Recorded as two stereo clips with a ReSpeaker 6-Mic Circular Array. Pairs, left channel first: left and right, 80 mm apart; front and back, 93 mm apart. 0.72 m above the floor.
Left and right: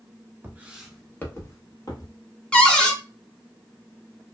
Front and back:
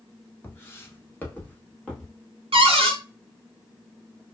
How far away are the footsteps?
About 0.8 m.